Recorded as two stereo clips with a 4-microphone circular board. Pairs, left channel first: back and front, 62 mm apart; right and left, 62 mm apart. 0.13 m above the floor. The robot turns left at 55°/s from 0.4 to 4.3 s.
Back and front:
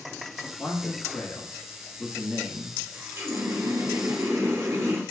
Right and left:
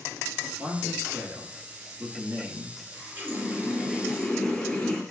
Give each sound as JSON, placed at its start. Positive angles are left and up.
{"t": 0.6, "sound": "a man speaking", "azimuth_deg": -170, "distance_m": 1.3}
{"t": 2.9, "sound": "a running tap", "azimuth_deg": 55, "distance_m": 1.5}